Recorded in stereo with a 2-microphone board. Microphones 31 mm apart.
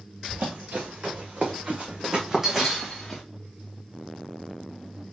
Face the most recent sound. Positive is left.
turn(degrees=10)  # may be behind; listen again after turning